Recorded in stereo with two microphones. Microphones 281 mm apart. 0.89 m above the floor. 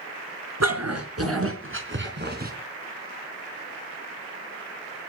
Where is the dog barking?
65° right (ahead or behind), 4.5 m; by 2.5 s 30° right (ahead or behind), 4 m.